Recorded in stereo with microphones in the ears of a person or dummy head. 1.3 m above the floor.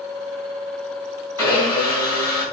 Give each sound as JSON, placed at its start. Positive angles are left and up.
{"t": 1.4, "sound": "a blender", "side_deg": -20, "distance_m": 1.5}